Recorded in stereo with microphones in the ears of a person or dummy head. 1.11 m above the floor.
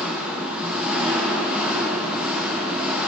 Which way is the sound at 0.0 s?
5° right (ahead or behind).